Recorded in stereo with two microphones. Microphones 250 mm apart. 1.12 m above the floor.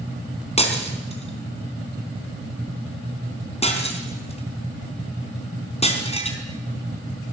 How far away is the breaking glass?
About 4 m.